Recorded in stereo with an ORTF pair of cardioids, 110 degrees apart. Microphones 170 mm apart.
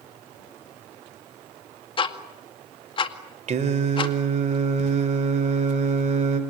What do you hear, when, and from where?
2.0 s ticking: 30° left, 2 m
3.5 s singing: 40° right, 3.5 m